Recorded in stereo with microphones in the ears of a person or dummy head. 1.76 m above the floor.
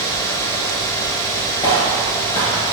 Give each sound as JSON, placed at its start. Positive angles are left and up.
{"t": 1.6, "sound": "footsteps", "side_deg": 20, "distance_m": 2.0}